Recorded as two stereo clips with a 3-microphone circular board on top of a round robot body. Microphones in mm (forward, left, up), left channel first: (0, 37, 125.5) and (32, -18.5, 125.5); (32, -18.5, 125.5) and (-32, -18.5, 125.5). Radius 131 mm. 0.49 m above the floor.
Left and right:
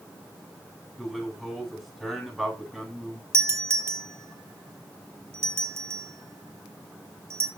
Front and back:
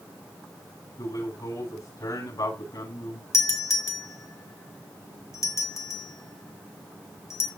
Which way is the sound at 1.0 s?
35° left.